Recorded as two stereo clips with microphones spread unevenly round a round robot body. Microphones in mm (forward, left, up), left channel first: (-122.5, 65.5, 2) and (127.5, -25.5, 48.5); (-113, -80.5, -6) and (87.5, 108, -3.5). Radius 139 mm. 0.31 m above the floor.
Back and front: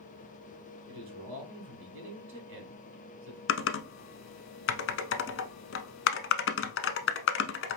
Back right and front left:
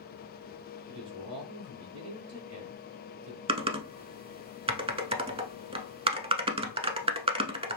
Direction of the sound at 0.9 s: 25° left.